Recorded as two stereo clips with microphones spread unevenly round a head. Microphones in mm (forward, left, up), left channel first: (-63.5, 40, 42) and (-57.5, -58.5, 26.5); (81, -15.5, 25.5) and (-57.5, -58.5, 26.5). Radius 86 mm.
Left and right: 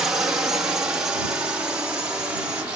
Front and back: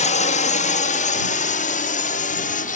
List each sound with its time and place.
0.0 s a drone: 5° right; by 2.8 s 10° right